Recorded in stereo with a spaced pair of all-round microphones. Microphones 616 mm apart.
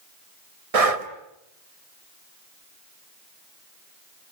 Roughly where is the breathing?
Right.